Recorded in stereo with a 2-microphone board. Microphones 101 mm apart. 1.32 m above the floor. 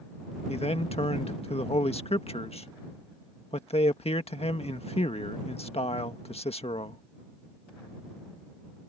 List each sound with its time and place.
0.5 s a man speaking: 85° left